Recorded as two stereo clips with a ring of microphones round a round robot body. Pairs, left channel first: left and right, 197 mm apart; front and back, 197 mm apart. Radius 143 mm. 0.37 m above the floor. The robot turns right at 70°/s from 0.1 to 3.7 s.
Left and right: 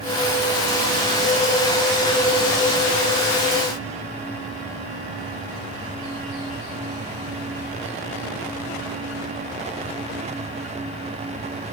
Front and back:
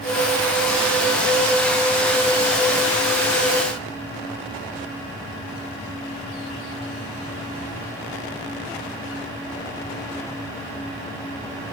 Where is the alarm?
No alarm in this recording.